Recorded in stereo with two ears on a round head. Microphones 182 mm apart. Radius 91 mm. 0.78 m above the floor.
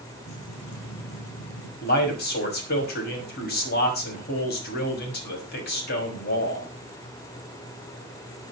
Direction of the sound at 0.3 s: 70° left (ahead or behind).